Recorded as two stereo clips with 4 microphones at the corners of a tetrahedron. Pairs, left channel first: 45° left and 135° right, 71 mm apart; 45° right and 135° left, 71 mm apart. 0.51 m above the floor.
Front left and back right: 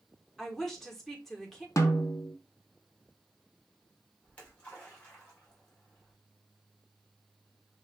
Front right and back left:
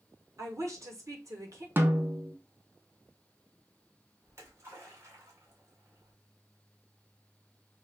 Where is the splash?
110° left, 1.9 m.